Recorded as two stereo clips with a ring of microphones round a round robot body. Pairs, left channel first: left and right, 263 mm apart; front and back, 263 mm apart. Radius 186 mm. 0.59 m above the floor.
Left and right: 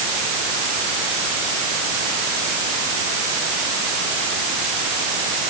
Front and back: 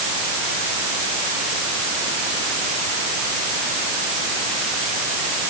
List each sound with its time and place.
Only background noise.